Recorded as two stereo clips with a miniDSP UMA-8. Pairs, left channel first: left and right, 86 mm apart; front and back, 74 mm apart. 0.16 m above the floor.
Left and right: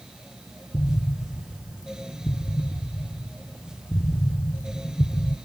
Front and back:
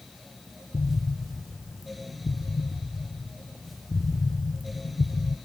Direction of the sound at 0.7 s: 30° left.